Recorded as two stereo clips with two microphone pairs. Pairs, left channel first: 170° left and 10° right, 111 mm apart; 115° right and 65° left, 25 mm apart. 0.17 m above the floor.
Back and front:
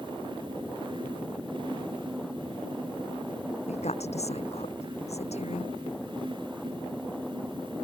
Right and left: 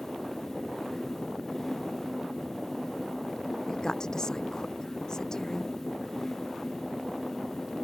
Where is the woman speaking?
175° right.